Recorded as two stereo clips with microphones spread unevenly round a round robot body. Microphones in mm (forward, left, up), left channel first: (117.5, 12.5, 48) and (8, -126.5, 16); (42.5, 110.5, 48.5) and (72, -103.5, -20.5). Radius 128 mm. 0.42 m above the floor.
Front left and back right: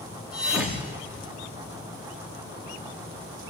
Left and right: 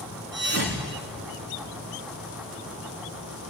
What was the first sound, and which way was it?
A thud, 45° right.